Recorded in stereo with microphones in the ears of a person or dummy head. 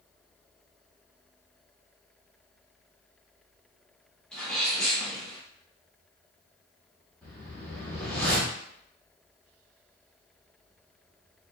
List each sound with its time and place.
4.3 s a sneeze: 5° left (ahead or behind), 2 m
7.2 s a whoosh: 10° left (ahead or behind), 1.8 m